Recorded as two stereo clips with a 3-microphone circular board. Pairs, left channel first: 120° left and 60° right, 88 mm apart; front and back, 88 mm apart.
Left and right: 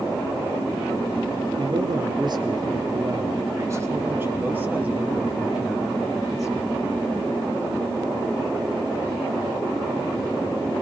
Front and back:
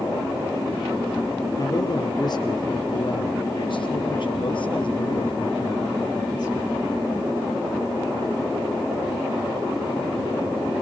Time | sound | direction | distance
1.6 | a man speaking | 40° right | 3.5 m